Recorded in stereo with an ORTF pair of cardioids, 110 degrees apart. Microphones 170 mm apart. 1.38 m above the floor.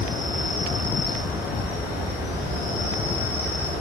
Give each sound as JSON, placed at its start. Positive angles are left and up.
{"t": 0.0, "sound": "an insect", "azimuth_deg": 65, "distance_m": 1.1}